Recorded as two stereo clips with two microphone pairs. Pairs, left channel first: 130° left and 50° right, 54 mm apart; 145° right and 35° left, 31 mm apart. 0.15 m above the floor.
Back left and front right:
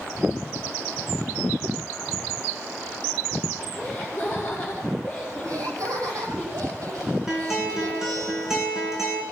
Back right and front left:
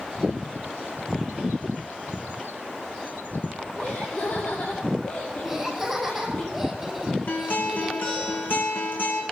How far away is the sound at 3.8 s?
About 5 m.